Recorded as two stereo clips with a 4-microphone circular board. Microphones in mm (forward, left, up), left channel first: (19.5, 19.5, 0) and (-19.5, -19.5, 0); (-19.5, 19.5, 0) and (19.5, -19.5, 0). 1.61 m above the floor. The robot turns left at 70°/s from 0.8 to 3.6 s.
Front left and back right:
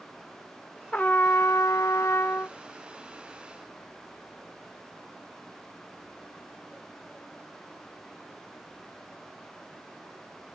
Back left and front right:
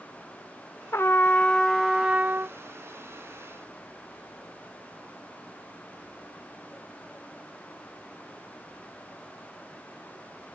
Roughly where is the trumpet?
Left.